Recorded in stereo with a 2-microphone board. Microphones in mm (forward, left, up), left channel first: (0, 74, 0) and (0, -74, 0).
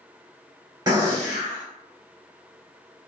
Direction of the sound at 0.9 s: 25° right (ahead or behind).